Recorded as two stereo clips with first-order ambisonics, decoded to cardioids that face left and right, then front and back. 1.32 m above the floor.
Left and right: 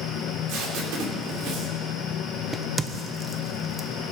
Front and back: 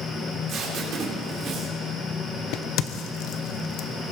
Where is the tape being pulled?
125° right, 3 m.